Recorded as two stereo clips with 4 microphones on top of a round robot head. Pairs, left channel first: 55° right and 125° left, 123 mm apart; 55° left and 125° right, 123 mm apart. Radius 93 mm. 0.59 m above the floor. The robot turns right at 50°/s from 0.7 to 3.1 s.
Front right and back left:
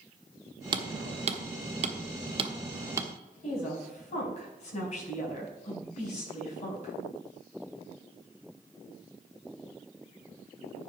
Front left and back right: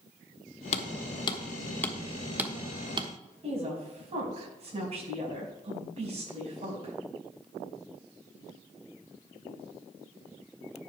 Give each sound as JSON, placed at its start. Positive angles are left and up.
{"t": 0.7, "sound": "hammering", "azimuth_deg": 75, "distance_m": 1.3}
{"t": 3.4, "sound": "a woman speaking", "azimuth_deg": -85, "distance_m": 5.5}